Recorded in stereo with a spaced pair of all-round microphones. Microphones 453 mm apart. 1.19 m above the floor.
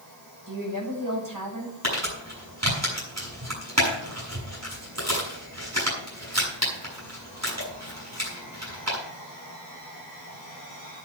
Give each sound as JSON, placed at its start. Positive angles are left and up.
{"t": 0.5, "sound": "a woman speaking", "side_deg": -45, "distance_m": 6.0}
{"t": 1.8, "sound": "crumpling", "side_deg": -35, "distance_m": 6.5}